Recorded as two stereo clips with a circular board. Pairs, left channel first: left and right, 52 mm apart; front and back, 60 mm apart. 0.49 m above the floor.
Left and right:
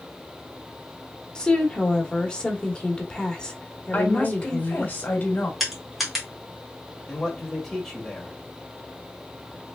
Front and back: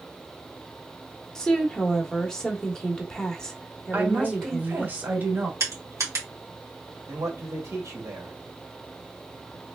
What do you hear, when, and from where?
1.4 s a woman speaking: 65° left, 1.1 m
3.9 s a woman speaking: 130° left, 1.8 m
5.6 s crushing: straight behind, 2 m
7.1 s a man speaking: 170° left, 2.0 m